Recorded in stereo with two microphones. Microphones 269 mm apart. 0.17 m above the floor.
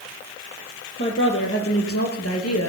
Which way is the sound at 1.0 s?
45° left (ahead or behind).